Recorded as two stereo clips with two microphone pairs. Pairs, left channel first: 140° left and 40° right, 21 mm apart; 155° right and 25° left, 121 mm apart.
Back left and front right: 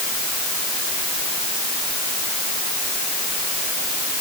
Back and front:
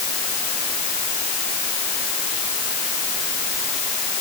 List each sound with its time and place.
Only background noise.